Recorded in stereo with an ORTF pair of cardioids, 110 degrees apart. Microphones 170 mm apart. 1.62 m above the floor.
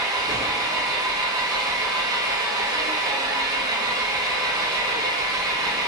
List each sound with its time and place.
0.0 s an engine running: 20° right, 0.8 m